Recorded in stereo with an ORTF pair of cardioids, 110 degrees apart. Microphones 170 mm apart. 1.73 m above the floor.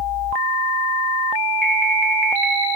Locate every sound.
1.6 s an alarm: 5° left, 2 m